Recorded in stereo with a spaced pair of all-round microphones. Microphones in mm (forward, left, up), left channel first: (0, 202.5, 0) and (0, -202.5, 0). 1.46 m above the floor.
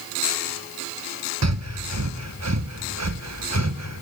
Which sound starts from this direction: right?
Breathing, at 1.4 s.